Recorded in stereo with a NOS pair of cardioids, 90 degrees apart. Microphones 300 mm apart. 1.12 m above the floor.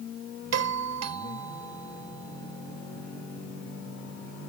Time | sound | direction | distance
0.5 | a doorbell | 65° right | ?